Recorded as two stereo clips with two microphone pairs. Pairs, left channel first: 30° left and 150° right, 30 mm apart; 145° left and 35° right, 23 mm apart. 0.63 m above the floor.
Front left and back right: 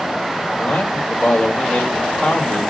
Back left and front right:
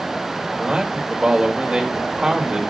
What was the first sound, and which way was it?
A man speaking, 25° left.